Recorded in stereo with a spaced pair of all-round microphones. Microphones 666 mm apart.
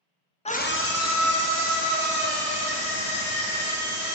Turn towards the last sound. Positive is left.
turn(degrees=35)  # may be behind; listen again after turning